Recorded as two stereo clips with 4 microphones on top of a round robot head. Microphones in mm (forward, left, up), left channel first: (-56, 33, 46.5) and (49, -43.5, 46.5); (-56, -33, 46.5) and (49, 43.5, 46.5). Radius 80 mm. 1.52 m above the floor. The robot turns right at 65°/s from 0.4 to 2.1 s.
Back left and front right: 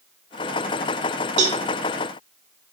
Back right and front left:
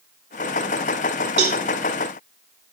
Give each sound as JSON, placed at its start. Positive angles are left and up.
{"t": 1.4, "sound": "a cowbell", "azimuth_deg": 0, "distance_m": 2.0}